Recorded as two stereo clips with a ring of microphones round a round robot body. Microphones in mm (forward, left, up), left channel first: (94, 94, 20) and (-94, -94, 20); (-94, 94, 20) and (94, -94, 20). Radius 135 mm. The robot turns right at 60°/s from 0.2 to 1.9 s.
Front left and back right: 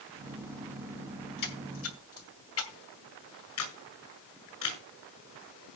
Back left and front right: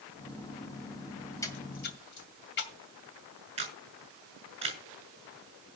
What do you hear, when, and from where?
1.4 s a splash: 55° left, 2 m; by 2.8 s 85° left, 2 m
3.6 s a camera shutter: 25° left, 6 m